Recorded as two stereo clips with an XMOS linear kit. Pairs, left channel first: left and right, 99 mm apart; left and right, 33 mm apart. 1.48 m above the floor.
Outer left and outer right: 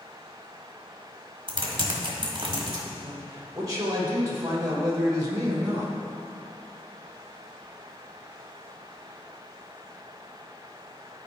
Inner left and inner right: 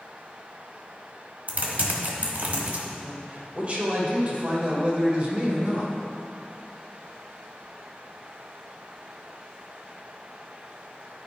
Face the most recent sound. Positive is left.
turn(degrees=-35)  # may be behind; listen again after turning